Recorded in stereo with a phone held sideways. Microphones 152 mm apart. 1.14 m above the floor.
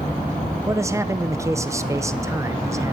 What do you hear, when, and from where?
0.7 s a man speaking: 20° right (ahead or behind), 0.6 m